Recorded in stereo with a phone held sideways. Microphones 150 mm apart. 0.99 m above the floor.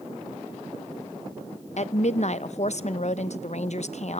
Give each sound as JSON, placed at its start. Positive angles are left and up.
{"t": 1.8, "sound": "a woman speaking", "side_deg": 50, "distance_m": 0.7}